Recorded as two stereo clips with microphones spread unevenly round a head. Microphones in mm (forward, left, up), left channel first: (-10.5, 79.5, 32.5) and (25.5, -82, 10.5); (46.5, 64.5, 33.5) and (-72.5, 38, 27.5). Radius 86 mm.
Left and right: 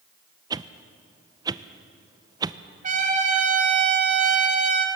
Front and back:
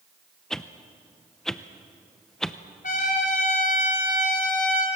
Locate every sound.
0.5 s a whoosh: 75° right, 0.7 m
2.8 s a trumpet: 30° right, 3 m